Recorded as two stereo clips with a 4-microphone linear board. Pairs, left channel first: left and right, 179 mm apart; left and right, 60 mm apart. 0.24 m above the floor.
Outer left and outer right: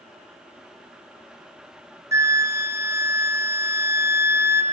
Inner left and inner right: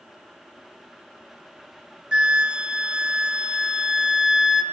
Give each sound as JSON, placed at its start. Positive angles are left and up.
{"t": 2.1, "sound": "a flute", "side_deg": -15, "distance_m": 0.6}